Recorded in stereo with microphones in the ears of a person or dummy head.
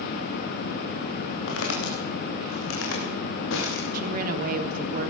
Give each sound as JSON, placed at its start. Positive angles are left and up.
{"t": 1.5, "sound": "footsteps", "side_deg": 75, "distance_m": 7.5}
{"t": 3.9, "sound": "a woman speaking", "side_deg": -50, "distance_m": 3.5}